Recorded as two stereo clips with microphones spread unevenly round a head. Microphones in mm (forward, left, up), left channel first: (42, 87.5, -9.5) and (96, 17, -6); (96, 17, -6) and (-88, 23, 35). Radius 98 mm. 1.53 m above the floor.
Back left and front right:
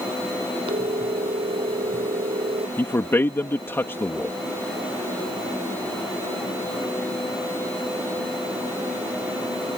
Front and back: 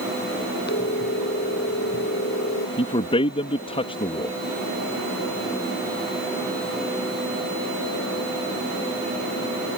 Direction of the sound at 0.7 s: 45° right.